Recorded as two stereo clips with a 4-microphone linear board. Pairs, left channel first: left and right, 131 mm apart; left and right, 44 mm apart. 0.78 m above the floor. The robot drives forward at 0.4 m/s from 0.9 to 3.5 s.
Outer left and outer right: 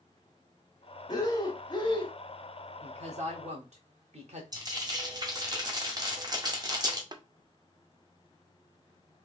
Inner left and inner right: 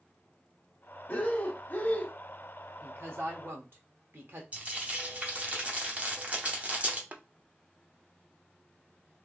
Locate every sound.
1.1 s breathing: 30° left (ahead or behind), 1.0 m; by 2.1 s 40° left (ahead or behind), 0.8 m
2.8 s a woman speaking: 55° right (ahead or behind), 1.2 m
4.5 s frying: 30° right (ahead or behind), 1.0 m
7.1 s tapping: 35° right (ahead or behind), 0.5 m